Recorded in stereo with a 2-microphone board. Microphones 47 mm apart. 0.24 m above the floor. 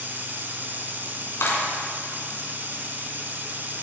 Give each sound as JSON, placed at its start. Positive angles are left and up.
{"t": 0.0, "sound": "running water", "side_deg": -40, "distance_m": 1.3}
{"t": 1.4, "sound": "a clap", "side_deg": 60, "distance_m": 2.5}